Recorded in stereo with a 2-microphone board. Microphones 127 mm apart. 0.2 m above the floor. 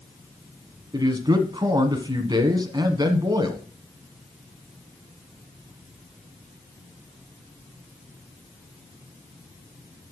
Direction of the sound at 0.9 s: 35° right (ahead or behind).